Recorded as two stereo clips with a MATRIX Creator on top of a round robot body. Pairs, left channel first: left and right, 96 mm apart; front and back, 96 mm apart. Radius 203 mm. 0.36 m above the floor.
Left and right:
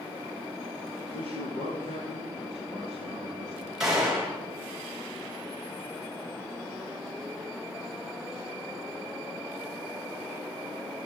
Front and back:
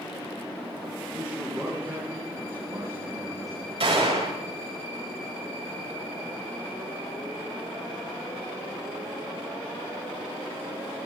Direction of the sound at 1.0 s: 95° left.